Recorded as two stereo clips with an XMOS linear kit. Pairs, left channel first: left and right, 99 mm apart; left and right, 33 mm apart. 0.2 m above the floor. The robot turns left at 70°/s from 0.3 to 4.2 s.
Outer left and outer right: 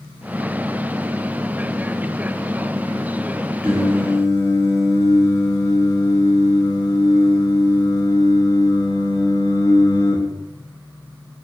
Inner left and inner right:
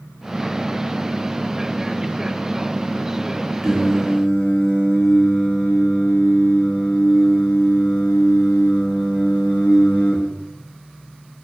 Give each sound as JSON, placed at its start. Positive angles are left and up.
{"t": 3.6, "sound": "singing", "azimuth_deg": -170, "distance_m": 0.5}